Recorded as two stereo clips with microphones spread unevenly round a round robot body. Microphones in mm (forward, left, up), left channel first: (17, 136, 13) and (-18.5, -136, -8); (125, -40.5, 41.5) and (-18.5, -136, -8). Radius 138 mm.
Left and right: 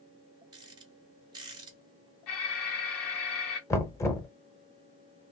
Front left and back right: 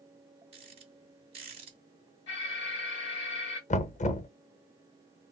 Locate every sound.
0.5 s a rattle: 165° right, 1.3 m
2.3 s an alarm: 80° left, 1.5 m
3.7 s knocking: 5° left, 0.6 m